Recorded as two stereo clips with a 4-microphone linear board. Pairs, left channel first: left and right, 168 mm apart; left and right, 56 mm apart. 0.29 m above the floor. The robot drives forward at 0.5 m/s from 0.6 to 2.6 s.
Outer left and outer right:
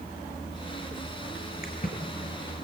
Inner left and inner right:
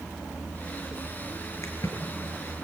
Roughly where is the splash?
Left.